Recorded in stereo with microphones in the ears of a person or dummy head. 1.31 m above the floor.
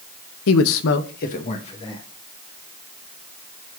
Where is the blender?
No blender in this recording.